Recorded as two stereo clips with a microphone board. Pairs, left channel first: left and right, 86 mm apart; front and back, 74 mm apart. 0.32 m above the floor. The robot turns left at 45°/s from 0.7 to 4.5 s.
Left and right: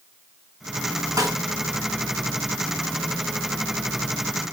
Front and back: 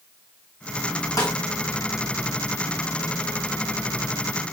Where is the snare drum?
40° right, 3.5 m; by 1.4 s 50° right, 3.5 m.